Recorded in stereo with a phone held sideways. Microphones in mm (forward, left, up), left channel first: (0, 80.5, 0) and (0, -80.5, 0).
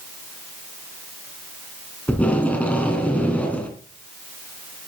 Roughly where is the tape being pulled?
Centre.